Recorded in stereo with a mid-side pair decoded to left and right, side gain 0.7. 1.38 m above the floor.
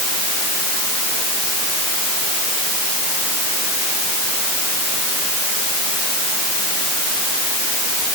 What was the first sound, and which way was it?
Only background noise.